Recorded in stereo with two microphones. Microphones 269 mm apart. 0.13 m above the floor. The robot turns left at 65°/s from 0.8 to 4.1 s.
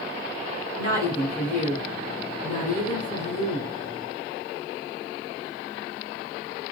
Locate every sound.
0.8 s a woman speaking: 145° right, 1.3 m; by 3.7 s 25° left, 1.3 m